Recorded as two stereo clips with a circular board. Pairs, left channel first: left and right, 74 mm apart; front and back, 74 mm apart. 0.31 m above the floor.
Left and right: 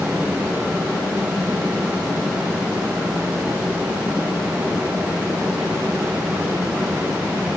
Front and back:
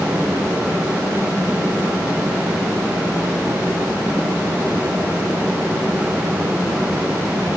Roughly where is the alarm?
No alarm in this recording.